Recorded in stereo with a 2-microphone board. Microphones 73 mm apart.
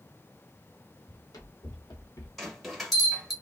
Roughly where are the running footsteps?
Left.